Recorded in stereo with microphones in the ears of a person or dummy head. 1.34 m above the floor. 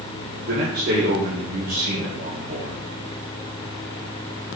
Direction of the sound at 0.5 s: 50° right (ahead or behind).